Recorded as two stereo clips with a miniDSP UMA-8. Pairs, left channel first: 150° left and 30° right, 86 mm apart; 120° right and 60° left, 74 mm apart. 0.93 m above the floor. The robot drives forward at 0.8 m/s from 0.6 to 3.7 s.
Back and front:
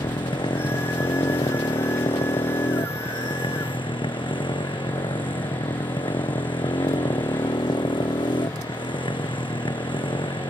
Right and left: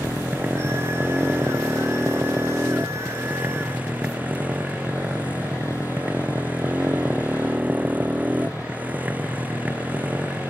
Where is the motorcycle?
125° left; by 10.5 s 130° left.